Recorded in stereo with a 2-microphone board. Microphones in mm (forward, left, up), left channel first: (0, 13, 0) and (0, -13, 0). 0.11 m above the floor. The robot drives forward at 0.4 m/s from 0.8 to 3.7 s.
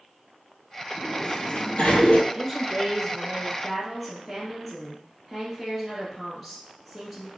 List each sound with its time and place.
1.0 s a sliding door: 40° left (ahead or behind), 1.3 m; by 2.2 s 55° left (ahead or behind), 1.0 m
2.3 s a woman speaking: 10° left (ahead or behind), 1.3 m